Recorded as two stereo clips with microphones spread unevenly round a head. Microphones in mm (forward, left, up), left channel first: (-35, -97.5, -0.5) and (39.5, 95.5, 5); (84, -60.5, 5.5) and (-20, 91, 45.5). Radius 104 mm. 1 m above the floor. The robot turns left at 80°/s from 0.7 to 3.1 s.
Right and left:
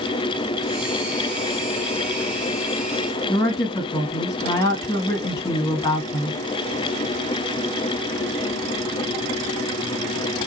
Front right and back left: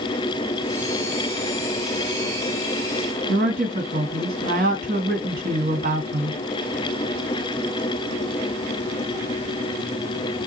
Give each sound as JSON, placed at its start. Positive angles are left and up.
{"t": 3.3, "sound": "a woman speaking", "azimuth_deg": 175, "distance_m": 1.8}